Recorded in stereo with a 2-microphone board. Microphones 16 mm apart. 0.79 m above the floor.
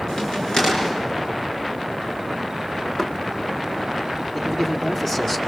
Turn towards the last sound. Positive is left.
turn(degrees=20)  # may be behind; listen again after turning